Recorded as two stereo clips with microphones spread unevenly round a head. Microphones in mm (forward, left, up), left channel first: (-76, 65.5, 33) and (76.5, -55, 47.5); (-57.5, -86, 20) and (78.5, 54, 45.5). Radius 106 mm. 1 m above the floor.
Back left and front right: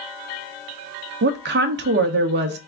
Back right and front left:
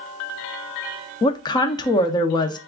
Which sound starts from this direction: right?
A woman speaking, at 1.2 s.